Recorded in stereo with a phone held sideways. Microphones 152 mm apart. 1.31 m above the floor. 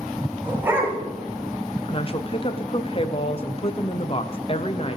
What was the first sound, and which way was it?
A dog barking, 15° right (ahead or behind).